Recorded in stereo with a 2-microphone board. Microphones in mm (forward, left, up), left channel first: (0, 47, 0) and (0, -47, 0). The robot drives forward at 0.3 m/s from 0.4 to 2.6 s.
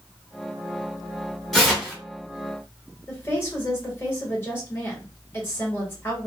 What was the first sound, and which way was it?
Tearing paper, 5° left (ahead or behind).